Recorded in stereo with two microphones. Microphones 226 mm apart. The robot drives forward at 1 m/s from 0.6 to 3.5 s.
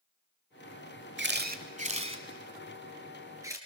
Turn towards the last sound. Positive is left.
turn(degrees=-15)  # may be behind; listen again after turning